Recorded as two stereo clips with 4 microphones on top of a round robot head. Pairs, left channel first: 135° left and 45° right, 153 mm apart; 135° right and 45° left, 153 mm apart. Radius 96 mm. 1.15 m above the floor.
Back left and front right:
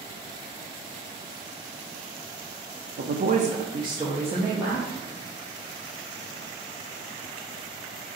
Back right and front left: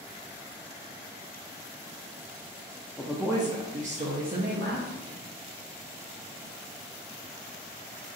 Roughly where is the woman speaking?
Ahead right.